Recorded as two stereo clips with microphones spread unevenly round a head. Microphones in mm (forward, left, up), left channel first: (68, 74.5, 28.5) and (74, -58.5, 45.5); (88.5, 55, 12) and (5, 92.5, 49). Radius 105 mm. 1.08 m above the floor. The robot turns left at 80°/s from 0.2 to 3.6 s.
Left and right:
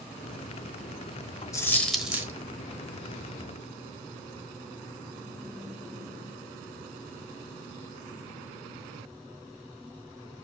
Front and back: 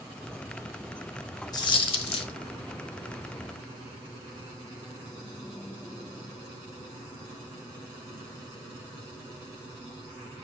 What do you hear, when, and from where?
1.5 s a dropped coin: 30° left, 1.1 m; by 2.3 s 35° right, 1.1 m